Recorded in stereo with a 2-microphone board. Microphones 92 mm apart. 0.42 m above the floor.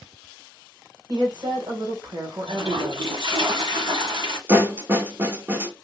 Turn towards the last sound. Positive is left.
turn(degrees=-20)  # may be behind; listen again after turning